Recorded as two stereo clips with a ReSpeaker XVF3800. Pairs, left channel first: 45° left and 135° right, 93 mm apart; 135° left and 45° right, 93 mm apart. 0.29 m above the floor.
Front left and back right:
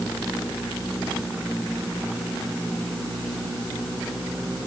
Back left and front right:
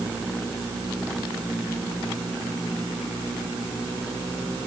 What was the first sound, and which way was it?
Only background noise.